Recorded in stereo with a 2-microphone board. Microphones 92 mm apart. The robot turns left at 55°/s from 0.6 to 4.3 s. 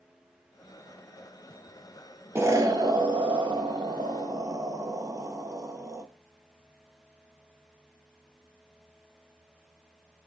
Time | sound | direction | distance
2.4 | an explosion | 30° right | 0.6 m